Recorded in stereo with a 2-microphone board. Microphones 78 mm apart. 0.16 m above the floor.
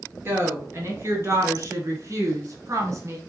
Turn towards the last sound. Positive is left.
turn(degrees=-40)  # may be behind; listen again after turning